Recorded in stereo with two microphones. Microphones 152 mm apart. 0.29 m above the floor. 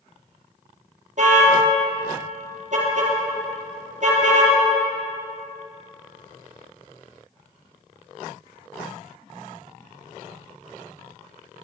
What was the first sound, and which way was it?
A car horn, 55° right (ahead or behind).